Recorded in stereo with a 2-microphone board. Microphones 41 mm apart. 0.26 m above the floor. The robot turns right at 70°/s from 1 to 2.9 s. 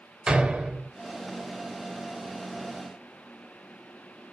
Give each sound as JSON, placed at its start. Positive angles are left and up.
{"t": 0.3, "sound": "a door slam", "side_deg": -20, "distance_m": 0.7}